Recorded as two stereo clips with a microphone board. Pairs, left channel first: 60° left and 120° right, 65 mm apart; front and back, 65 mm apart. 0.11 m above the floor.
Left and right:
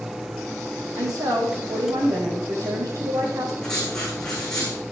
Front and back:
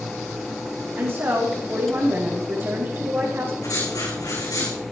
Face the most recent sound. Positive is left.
turn(degrees=-20)